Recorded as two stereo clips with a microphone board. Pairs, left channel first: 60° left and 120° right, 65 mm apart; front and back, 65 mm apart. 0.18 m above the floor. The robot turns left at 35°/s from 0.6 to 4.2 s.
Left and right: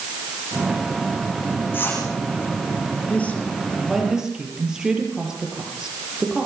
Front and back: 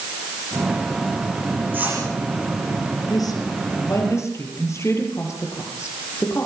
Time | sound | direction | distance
1.7 | a whoosh | 120° left | 8.5 m
3.1 | a woman speaking | 5° right | 5 m